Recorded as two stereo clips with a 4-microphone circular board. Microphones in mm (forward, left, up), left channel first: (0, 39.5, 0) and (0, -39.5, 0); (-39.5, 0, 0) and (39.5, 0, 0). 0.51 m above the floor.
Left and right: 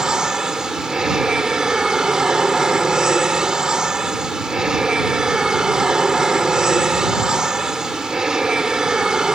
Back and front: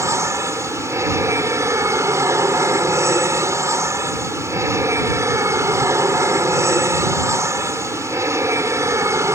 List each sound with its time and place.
0.0 s an aircraft: 15° right